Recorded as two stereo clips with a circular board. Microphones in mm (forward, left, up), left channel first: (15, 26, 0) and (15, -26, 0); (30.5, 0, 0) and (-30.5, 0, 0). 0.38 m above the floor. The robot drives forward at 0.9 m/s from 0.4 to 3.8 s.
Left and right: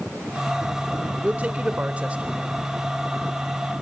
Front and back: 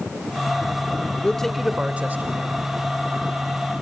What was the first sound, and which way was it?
A man speaking, 55° right.